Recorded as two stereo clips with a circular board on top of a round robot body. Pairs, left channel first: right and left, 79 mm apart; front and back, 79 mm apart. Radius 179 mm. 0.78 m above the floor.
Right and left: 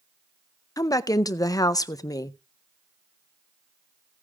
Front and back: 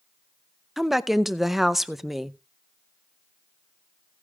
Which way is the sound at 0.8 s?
95° right.